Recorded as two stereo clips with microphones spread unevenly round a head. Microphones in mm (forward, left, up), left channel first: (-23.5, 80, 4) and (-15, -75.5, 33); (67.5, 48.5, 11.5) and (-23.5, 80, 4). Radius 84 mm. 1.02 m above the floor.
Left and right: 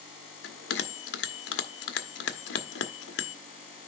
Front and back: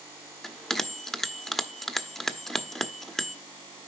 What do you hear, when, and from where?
0.4 s a bell: 65° left, 1.0 m